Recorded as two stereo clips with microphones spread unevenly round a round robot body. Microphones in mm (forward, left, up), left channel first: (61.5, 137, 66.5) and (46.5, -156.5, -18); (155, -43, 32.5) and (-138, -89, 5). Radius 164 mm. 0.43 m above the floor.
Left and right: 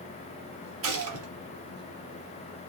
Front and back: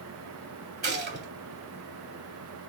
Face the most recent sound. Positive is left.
turn(degrees=-120)